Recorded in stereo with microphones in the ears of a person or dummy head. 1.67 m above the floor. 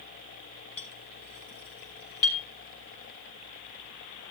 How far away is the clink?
About 4.5 m.